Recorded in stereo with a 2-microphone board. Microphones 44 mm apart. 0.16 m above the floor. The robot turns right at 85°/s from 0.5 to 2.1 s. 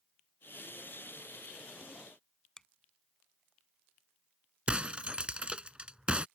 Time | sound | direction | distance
2.6 | a finger snap | 15° left (ahead or behind) | ?
4.7 | breaking glass | 25° right (ahead or behind) | ?